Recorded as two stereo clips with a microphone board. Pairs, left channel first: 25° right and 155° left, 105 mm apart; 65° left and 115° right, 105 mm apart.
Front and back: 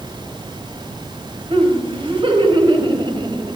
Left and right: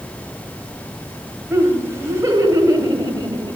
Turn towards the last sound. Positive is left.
turn(degrees=-160)